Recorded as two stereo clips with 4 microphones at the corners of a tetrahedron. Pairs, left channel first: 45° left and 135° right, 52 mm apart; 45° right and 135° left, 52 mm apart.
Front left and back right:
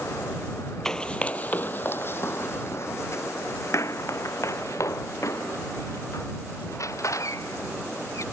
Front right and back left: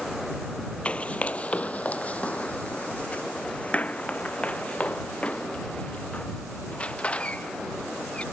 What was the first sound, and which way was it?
Running footsteps, 20° right.